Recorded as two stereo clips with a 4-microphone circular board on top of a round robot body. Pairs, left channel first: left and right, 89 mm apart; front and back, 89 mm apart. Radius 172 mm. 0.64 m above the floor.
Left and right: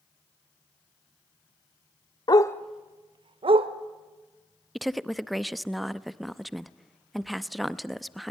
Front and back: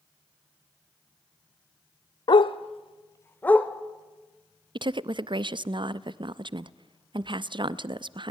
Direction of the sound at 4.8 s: Straight behind.